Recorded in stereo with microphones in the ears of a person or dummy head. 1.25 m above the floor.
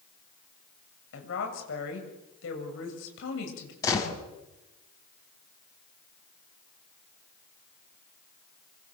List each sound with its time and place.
1.1 s a woman speaking: 80° left, 8 m
3.8 s a gunshot: 20° left (ahead or behind), 6 m